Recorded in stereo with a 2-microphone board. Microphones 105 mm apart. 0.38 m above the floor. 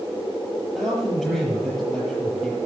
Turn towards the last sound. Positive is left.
turn(degrees=5)  # may be behind; listen again after turning